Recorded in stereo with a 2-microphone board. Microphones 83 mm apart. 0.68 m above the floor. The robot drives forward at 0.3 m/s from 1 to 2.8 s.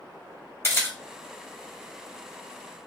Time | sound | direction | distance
0.6 | a camera shutter | 30° left (ahead or behind) | 1.1 m